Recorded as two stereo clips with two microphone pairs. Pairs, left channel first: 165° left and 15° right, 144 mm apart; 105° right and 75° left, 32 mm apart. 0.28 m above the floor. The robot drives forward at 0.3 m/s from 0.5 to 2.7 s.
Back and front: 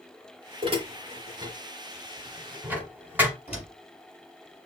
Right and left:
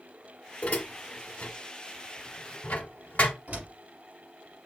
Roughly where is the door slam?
Behind left.